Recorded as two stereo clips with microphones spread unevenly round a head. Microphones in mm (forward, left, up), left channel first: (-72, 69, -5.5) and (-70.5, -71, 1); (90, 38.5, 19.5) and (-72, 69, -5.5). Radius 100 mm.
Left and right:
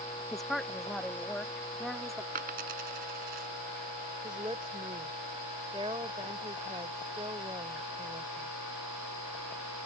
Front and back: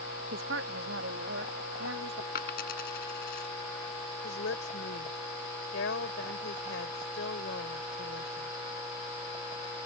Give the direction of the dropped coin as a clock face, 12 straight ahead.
2 o'clock.